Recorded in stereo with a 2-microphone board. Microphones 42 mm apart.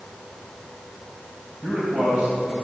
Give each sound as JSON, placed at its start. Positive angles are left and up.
{"t": 1.6, "sound": "a man speaking", "side_deg": -35, "distance_m": 2.5}